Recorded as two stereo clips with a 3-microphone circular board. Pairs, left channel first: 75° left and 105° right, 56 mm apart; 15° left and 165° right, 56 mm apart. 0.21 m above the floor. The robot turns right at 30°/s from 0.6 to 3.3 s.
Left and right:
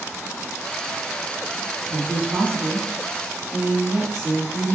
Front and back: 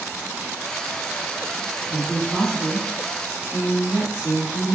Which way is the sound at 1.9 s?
70° right.